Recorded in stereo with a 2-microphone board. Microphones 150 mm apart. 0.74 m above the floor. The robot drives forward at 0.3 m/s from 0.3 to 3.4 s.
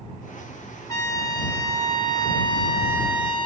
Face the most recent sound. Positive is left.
turn(degrees=35)  # may be behind; listen again after turning